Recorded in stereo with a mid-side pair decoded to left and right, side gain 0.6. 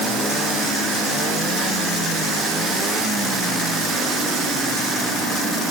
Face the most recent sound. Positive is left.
No sound to turn to.